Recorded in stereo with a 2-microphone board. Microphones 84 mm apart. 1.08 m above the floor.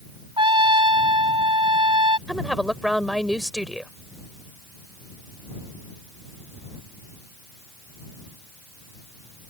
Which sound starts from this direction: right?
A trumpet, at 0.4 s.